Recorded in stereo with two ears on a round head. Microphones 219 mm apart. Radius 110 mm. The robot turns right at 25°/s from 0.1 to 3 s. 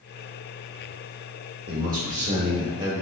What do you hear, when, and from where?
1.7 s a man speaking: 50° right, 0.8 m; by 3.0 s 15° right, 0.8 m